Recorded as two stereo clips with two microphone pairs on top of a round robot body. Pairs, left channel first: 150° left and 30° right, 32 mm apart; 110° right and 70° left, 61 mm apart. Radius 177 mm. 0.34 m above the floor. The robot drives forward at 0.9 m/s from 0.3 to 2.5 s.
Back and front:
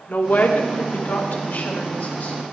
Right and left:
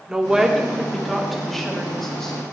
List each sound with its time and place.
0.1 s a woman speaking: 145° left, 1.8 m; by 2.4 s 165° left, 3.5 m